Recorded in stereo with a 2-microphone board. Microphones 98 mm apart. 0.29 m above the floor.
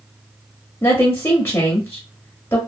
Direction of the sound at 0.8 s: 25° left (ahead or behind).